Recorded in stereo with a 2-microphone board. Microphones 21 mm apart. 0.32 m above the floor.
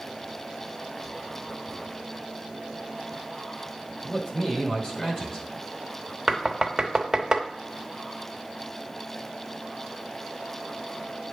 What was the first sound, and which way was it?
A man speaking, 30° left (ahead or behind).